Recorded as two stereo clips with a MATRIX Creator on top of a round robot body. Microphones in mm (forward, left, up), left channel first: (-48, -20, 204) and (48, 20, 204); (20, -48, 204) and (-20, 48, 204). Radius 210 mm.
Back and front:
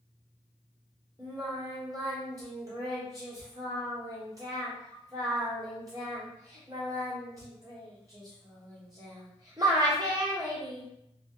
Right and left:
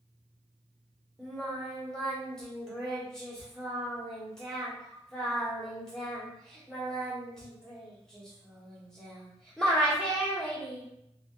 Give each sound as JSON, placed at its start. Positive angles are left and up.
{"t": 1.2, "sound": "singing", "azimuth_deg": 10, "distance_m": 1.3}